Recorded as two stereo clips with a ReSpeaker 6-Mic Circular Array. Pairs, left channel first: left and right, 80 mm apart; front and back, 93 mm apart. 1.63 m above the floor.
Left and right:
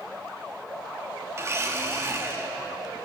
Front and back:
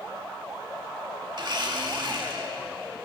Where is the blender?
145° right, 2.5 m.